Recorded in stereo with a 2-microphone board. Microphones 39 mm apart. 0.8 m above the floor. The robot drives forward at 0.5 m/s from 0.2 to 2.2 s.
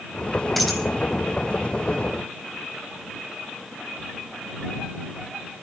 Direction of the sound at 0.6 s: 5° left (ahead or behind).